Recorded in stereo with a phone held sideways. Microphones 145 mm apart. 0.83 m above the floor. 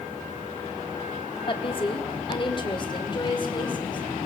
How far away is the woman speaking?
About 1.7 m.